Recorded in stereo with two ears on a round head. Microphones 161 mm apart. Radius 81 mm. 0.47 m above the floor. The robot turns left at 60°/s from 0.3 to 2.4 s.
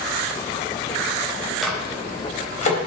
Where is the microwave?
Centre (ahead or behind), 2.5 m; by 2.8 s 40° left (ahead or behind), 2.5 m.